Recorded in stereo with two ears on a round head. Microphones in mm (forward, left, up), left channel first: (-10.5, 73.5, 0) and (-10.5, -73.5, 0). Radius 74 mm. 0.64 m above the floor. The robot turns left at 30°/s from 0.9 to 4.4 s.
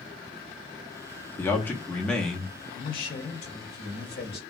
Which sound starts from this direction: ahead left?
A man speaking, at 1.4 s.